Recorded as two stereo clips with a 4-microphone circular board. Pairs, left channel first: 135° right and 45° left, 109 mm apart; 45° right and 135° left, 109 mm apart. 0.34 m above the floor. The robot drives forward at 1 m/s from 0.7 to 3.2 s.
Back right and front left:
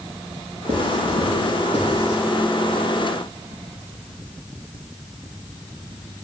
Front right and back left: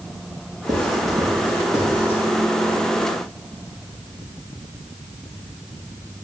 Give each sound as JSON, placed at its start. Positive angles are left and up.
{"t": 0.7, "sound": "writing", "azimuth_deg": 75, "distance_m": 4.5}